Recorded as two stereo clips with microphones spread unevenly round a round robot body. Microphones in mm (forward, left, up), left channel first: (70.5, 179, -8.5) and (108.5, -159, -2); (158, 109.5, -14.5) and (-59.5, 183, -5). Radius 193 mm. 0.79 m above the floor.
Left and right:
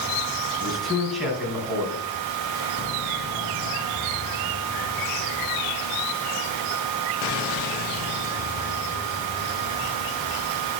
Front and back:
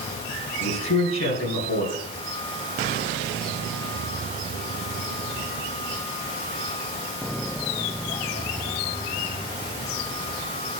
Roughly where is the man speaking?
Ahead.